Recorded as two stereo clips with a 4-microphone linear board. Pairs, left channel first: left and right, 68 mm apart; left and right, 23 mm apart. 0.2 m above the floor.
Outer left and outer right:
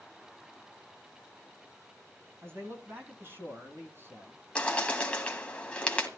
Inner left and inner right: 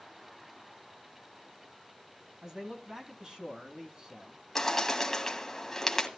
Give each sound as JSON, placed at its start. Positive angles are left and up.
{"t": 2.4, "sound": "a man speaking", "side_deg": -40, "distance_m": 2.0}
{"t": 4.5, "sound": "a bird", "side_deg": 15, "distance_m": 1.6}